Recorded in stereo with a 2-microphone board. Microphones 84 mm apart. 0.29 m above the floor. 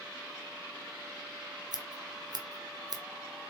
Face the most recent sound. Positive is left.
turn(degrees=-55)  # may be behind; listen again after turning